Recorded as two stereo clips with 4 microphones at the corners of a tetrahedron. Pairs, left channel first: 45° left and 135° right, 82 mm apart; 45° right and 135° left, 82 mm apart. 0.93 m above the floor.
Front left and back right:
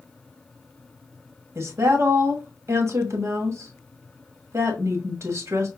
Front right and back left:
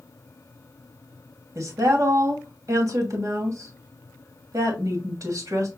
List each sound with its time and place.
1.6 s a woman speaking: 175° left, 1.2 m